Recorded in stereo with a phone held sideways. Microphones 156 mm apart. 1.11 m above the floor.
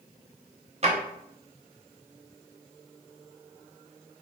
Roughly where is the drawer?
Right.